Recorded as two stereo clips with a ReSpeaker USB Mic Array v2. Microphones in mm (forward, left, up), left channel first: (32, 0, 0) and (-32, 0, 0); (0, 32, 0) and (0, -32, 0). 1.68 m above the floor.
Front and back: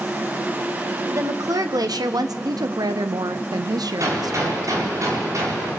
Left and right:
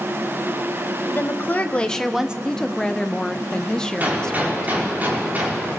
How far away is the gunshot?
About 4.5 m.